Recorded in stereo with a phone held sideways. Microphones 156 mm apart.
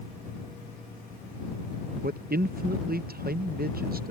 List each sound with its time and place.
2.0 s a man speaking: 75° right (ahead or behind)